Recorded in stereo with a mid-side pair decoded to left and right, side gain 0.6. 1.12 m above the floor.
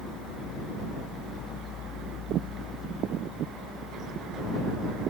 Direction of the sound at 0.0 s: 55° left.